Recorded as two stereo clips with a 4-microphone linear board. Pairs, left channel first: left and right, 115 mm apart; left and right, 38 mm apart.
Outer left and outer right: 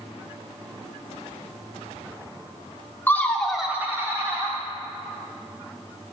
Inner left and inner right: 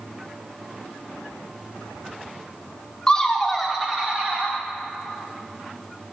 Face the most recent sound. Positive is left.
turn(degrees=-35)  # may be behind; listen again after turning